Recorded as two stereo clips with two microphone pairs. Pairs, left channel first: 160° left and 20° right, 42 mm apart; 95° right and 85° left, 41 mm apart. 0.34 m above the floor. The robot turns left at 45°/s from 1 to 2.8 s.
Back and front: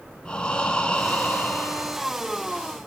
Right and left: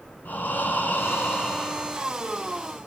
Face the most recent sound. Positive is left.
turn(degrees=150)